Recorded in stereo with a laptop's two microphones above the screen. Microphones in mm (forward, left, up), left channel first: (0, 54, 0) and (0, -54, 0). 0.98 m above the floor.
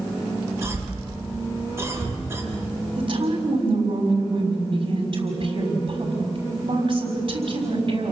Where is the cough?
25° right (ahead or behind), 8 m.